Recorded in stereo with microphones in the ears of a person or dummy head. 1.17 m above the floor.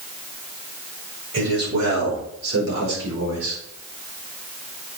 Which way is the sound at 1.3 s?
80° right.